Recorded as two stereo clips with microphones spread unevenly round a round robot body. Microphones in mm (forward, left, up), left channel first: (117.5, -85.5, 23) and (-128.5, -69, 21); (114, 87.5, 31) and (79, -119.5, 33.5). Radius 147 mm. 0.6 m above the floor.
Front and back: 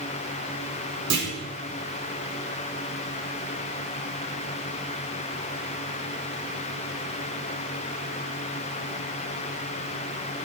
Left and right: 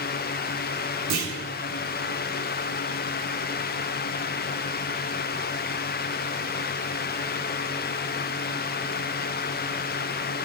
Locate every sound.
1.1 s a clunk: 145° right, 5 m